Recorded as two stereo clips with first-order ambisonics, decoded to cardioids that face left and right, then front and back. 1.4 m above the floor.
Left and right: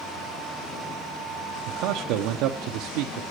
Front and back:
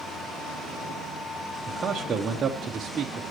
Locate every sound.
1.7 s a man speaking: 115° right, 0.8 m